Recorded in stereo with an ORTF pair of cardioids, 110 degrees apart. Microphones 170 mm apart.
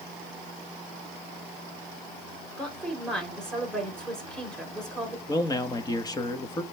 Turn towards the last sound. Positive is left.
turn(degrees=25)